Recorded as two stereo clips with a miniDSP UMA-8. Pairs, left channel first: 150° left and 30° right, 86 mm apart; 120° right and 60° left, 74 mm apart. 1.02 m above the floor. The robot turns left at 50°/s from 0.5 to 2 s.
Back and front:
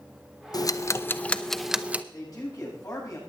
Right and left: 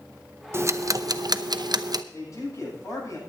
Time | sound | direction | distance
0.5 | ticking | 115° left | 0.7 m
2.1 | a man speaking | 165° right | 8 m